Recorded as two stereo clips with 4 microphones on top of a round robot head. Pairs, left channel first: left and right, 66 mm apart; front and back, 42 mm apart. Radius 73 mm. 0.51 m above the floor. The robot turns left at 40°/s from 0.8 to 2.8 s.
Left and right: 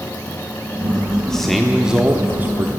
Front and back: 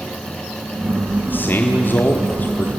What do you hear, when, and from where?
1.3 s a man speaking: 10° left, 1.5 m; by 2.7 s 45° right, 1.5 m